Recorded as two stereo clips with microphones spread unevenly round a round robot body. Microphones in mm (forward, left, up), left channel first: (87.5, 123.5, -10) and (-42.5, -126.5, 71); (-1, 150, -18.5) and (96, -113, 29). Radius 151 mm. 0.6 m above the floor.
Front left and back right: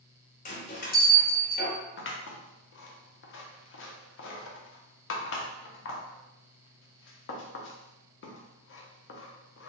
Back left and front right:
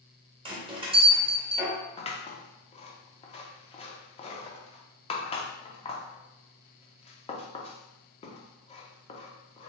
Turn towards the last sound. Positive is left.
turn(degrees=50)